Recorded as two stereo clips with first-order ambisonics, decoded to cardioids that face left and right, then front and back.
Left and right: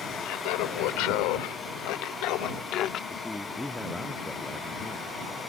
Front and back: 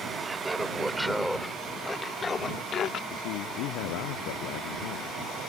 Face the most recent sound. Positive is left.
turn(degrees=5)